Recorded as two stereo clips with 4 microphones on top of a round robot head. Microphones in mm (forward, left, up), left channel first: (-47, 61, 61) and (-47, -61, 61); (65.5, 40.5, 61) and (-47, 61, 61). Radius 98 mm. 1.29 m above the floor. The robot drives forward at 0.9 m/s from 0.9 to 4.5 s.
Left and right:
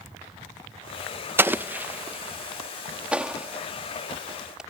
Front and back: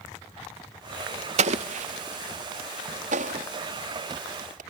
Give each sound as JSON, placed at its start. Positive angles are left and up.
{"t": 1.4, "sound": "an explosion", "azimuth_deg": -165}